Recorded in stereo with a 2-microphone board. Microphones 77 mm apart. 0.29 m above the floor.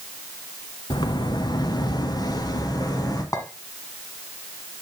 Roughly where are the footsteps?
Left.